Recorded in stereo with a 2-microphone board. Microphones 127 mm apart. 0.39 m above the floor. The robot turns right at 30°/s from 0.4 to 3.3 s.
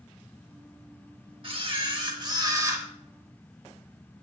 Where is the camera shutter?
75° right, 1.0 m; by 2.9 s 30° right, 1.0 m.